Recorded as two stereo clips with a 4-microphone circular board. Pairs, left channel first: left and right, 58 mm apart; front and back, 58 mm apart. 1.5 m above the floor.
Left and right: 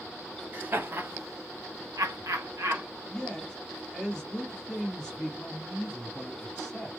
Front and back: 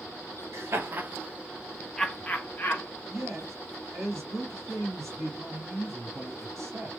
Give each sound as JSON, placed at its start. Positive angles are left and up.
{"t": 0.5, "sound": "laughter", "azimuth_deg": -145, "distance_m": 0.8}
{"t": 3.1, "sound": "a man speaking", "azimuth_deg": 175, "distance_m": 1.1}